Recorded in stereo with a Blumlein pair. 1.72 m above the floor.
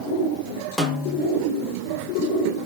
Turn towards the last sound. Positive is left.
turn(degrees=5)